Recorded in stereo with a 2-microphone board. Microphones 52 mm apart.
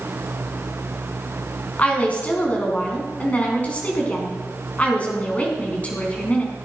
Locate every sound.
1.8 s a woman speaking: 25° left (ahead or behind), 3.5 m